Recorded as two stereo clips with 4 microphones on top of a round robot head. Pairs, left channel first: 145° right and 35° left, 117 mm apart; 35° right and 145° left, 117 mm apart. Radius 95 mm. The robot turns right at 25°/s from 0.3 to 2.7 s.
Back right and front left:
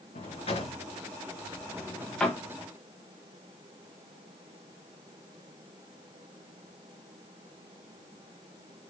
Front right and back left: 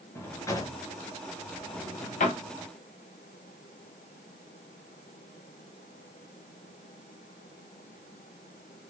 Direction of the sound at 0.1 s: 105° right.